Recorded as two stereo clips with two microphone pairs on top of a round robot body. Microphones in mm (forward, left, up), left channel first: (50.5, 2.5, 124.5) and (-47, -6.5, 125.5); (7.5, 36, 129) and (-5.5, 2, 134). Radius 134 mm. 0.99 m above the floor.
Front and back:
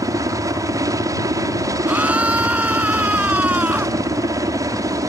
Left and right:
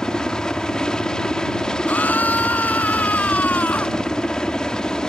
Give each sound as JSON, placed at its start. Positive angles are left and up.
{"t": 0.0, "sound": "a helicopter", "azimuth_deg": 130}
{"t": 1.9, "sound": "a scream", "azimuth_deg": 110}